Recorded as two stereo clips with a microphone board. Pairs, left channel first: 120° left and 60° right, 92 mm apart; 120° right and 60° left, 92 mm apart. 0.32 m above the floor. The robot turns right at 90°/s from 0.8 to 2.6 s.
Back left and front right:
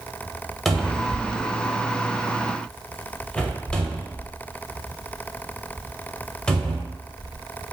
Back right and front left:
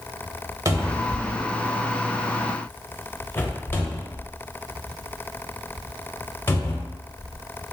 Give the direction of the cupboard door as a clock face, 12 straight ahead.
11 o'clock.